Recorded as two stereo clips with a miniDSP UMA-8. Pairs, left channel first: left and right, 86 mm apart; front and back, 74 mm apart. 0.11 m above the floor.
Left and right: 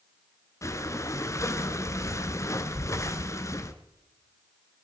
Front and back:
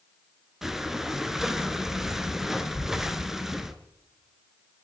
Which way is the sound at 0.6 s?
100° left.